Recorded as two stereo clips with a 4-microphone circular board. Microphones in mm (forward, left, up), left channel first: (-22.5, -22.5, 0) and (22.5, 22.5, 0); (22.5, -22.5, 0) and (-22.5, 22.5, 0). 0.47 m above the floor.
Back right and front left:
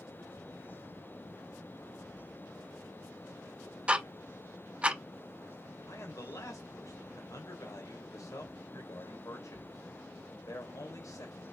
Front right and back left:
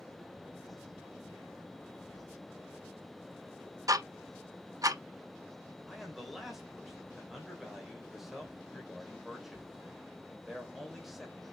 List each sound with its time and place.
3.9 s ticking: 115° left, 0.6 m
5.9 s a man speaking: 140° right, 1.8 m